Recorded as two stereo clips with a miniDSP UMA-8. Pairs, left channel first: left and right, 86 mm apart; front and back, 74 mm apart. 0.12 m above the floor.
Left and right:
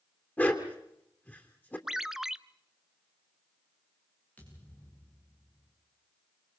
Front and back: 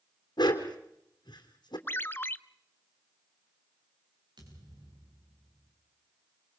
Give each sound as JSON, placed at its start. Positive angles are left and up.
{"t": 0.4, "sound": "a dog barking", "azimuth_deg": 20, "distance_m": 3.0}
{"t": 1.9, "sound": "a ringtone", "azimuth_deg": -10, "distance_m": 0.5}
{"t": 4.4, "sound": "a thud", "azimuth_deg": 160, "distance_m": 9.0}